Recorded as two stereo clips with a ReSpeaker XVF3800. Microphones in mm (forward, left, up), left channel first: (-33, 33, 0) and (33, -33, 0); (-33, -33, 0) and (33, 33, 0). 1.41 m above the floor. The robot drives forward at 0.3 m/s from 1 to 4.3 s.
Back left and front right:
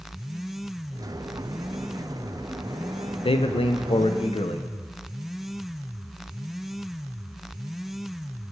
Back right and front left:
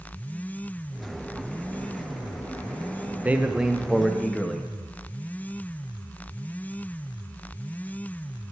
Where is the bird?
I don't hear a bird.